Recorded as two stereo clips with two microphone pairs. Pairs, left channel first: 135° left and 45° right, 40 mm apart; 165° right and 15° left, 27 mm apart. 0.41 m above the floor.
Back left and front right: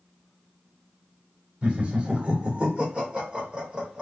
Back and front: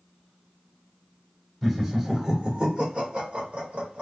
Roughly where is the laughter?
Right.